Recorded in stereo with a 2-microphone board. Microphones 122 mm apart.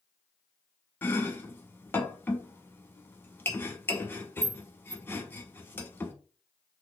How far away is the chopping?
About 0.9 m.